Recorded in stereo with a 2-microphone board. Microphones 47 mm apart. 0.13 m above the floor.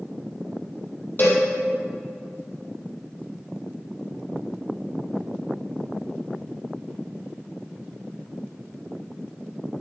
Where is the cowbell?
45° left (ahead or behind), 4.5 m.